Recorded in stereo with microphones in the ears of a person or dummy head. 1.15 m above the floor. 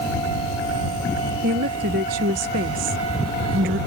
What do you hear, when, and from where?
1.4 s a woman speaking: 40° right (ahead or behind)